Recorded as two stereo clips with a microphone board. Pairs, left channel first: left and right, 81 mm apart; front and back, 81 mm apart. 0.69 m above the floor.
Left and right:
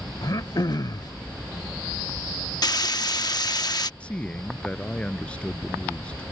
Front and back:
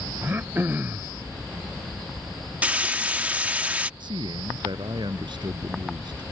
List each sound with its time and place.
0.2 s throat clearing: 120° left
2.6 s frying: 110° left
4.0 s a man speaking: 165° left